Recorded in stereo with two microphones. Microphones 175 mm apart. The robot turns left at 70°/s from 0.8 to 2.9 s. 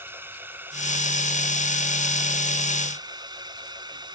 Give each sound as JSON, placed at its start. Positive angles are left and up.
{"t": 0.0, "sound": "a drone", "side_deg": -15}